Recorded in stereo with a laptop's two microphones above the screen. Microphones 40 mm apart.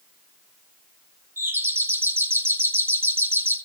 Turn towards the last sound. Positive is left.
turn(degrees=-65)  # may be behind; listen again after turning